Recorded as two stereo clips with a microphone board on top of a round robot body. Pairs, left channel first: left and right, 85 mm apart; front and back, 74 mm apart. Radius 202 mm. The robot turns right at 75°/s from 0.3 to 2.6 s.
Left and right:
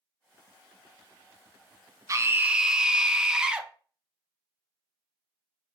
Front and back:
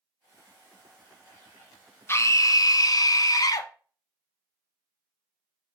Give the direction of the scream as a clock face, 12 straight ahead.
2 o'clock.